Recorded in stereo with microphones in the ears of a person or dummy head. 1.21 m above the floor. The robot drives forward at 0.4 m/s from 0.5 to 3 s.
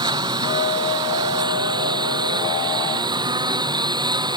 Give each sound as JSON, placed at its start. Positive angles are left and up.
{"t": 0.0, "sound": "a lawn mower", "side_deg": -20}